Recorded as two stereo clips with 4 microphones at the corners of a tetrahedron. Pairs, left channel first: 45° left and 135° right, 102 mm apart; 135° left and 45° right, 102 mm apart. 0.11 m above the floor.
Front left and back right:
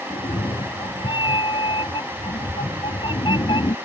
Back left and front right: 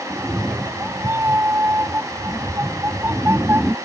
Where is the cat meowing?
20° left.